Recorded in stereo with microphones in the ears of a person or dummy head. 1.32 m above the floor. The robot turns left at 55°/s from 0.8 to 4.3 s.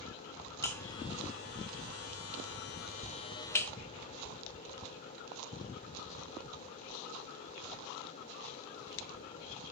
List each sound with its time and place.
0.6 s a buzzer: 15° left (ahead or behind), 1.9 m; by 3.7 s 5° left (ahead or behind), 1.9 m